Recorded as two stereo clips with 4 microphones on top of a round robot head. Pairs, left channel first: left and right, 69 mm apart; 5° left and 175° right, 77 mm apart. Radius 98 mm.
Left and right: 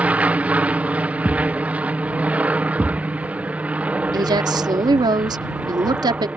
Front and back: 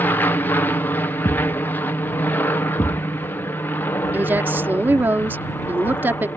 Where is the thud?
5° right.